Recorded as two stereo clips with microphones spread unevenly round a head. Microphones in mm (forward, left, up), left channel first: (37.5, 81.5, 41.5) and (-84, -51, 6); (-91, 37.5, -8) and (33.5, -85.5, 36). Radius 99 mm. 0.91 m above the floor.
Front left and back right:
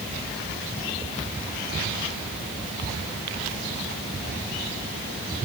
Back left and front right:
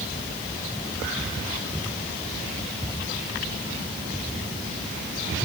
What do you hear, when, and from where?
Only background noise.